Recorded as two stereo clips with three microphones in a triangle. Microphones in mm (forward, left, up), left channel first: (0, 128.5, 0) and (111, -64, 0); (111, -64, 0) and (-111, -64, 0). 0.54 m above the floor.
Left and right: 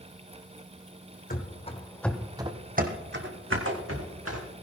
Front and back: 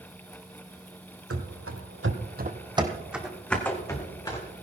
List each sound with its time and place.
1.3 s running footsteps: 170° left, 1.7 m; by 4.5 s 75° right, 3 m